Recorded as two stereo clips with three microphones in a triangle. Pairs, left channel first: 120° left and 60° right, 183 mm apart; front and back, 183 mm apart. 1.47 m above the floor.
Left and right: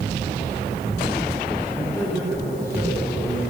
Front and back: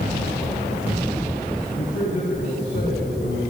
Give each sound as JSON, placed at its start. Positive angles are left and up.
{"t": 1.7, "sound": "a man speaking", "azimuth_deg": 10, "distance_m": 9.0}